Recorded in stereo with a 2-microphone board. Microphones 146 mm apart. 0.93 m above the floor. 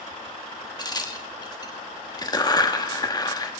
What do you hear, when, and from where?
0.8 s a crack: 25° left (ahead or behind), 1.1 m